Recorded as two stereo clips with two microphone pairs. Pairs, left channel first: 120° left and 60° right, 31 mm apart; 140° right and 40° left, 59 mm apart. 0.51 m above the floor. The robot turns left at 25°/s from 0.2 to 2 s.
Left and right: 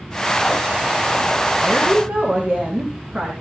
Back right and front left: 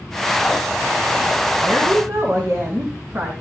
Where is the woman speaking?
5° left, 5 m; by 3.3 s 5° right, 5 m.